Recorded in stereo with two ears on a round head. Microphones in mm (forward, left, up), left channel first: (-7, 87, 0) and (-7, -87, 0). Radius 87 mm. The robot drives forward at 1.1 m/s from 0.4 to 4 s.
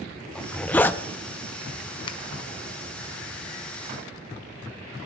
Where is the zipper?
5° left (ahead or behind), 0.9 m; by 1.0 s 10° left (ahead or behind), 0.5 m.